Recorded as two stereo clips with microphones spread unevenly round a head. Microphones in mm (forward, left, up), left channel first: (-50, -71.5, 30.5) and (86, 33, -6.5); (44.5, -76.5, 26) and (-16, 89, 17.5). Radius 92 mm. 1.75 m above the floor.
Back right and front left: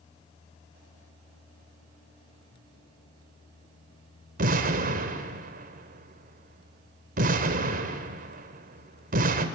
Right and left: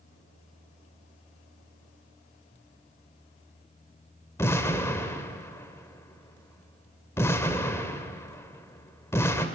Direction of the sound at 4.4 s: Straight ahead.